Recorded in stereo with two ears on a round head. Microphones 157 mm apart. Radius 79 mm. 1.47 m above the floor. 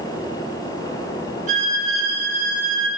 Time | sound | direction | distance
1.5 | a violin | 50° right (ahead or behind) | 7 m